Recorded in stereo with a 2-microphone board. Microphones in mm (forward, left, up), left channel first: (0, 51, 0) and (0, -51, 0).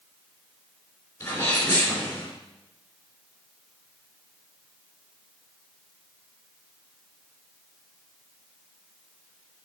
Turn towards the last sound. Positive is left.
turn(degrees=20)  # may be behind; listen again after turning